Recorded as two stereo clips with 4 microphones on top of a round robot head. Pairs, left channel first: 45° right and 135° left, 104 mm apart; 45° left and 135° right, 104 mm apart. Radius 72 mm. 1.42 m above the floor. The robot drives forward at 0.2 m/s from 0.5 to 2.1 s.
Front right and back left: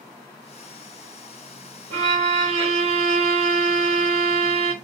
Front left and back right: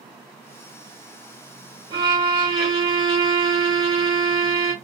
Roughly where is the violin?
Behind.